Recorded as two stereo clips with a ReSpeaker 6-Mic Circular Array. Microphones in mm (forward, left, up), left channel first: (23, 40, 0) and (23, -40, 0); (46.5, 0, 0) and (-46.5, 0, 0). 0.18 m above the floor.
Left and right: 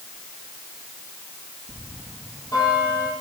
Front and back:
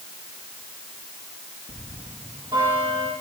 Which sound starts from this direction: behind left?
A bell, at 1.7 s.